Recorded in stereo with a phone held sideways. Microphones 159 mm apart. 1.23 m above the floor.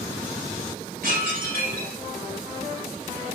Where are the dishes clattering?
85° right, 4 m.